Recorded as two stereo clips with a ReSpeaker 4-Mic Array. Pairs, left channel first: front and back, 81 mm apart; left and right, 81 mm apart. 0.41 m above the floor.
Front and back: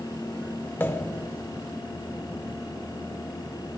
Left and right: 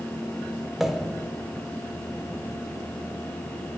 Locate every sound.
0.8 s a pop: 10° right, 0.7 m